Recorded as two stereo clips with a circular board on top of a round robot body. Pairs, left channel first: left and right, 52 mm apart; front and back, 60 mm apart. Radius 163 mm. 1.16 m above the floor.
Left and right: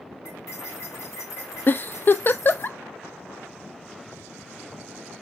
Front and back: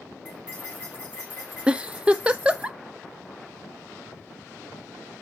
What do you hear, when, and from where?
0.2 s cutlery clinking: 105° left, 3 m
1.7 s a giggle: 115° left, 0.5 m